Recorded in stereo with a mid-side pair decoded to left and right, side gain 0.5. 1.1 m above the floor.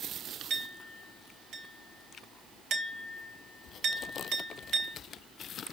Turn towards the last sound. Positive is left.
turn(degrees=-60)